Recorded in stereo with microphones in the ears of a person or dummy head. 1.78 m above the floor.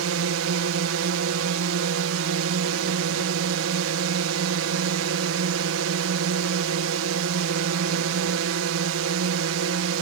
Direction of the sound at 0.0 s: 70° right (ahead or behind).